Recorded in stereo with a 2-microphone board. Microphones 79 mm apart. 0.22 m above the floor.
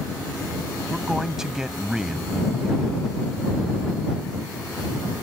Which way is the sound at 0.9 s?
5° right (ahead or behind).